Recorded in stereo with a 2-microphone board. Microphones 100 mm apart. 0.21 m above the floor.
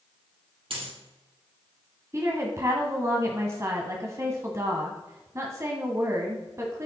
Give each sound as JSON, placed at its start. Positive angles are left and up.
{"t": 0.7, "sound": "a dropped coin", "side_deg": -65, "distance_m": 3.0}
{"t": 2.1, "sound": "a woman speaking", "side_deg": -30, "distance_m": 1.4}